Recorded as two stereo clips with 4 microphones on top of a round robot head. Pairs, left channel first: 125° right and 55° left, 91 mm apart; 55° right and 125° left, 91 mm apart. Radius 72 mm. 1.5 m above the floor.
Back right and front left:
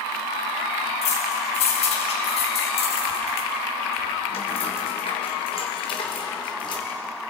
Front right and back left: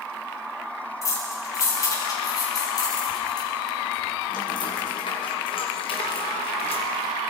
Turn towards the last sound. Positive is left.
turn(degrees=-80)